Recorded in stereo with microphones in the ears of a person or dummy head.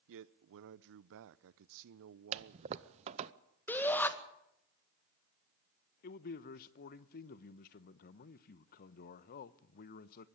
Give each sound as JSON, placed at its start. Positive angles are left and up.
{"t": 0.1, "sound": "a man speaking", "side_deg": -70, "distance_m": 0.6}
{"t": 2.3, "sound": "a toilet flushing", "side_deg": -35, "distance_m": 0.6}
{"t": 3.7, "sound": "a shout", "side_deg": 15, "distance_m": 1.9}
{"t": 6.0, "sound": "a man speaking", "side_deg": 50, "distance_m": 0.9}